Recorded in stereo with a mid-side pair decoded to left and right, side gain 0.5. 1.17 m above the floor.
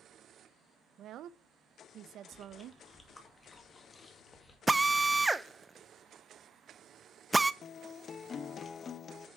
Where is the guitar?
45° left, 0.6 m.